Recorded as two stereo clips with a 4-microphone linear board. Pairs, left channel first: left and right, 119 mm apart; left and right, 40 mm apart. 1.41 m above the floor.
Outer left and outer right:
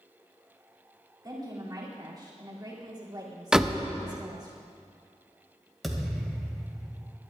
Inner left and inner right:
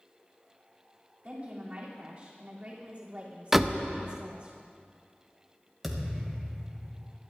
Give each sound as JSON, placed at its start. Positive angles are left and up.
{"t": 1.2, "sound": "a woman speaking", "side_deg": -35, "distance_m": 3.0}
{"t": 3.5, "sound": "a door slam", "side_deg": -5, "distance_m": 0.7}
{"t": 5.8, "sound": "a thud", "side_deg": 0, "distance_m": 2.0}